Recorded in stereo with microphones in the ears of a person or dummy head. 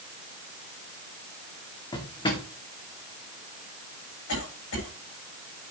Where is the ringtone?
No ringtone in this recording.